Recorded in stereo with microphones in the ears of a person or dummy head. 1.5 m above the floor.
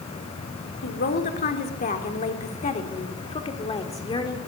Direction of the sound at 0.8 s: 45° left (ahead or behind).